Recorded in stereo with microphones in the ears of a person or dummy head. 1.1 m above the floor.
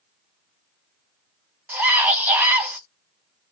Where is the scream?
10° right (ahead or behind), 0.7 m.